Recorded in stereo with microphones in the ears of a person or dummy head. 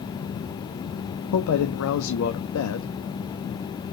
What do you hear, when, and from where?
1.3 s a man speaking: 80° left, 0.5 m